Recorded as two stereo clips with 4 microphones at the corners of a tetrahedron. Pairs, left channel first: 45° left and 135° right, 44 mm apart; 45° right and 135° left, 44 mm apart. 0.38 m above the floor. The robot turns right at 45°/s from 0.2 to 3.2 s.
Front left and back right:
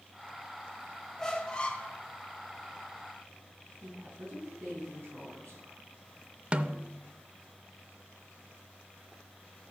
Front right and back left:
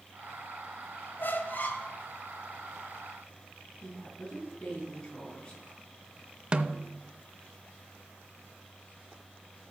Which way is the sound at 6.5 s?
175° right.